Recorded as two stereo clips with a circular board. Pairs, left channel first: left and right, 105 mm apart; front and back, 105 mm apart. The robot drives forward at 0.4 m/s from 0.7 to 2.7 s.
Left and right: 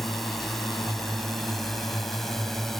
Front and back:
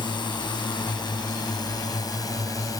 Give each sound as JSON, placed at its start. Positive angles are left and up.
{"t": 0.0, "sound": "a drone", "azimuth_deg": 5}